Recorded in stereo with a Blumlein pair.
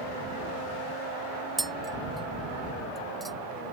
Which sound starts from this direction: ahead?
Tapping, at 1.6 s.